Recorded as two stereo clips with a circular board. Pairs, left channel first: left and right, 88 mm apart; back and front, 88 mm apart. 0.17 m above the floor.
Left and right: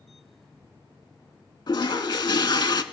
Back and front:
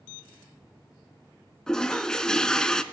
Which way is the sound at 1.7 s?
100° left.